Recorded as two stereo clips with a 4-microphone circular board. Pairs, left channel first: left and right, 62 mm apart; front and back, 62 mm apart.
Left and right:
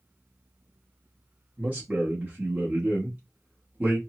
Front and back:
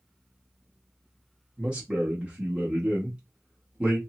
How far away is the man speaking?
About 0.8 m.